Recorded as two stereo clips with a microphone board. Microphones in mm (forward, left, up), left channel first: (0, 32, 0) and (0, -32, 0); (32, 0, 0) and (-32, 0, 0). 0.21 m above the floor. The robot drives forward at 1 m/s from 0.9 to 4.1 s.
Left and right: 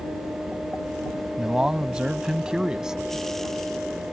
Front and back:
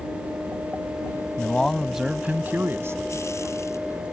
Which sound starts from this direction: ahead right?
A man speaking, at 1.4 s.